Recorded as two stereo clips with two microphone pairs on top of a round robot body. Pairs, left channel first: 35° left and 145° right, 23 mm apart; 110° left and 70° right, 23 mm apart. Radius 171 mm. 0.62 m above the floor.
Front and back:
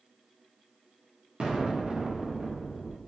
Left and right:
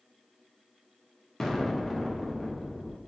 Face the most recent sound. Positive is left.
turn(degrees=180)